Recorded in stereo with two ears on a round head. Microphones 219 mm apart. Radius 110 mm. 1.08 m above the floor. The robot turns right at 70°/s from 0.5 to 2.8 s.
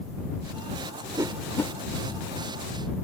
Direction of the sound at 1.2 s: 15° right (ahead or behind).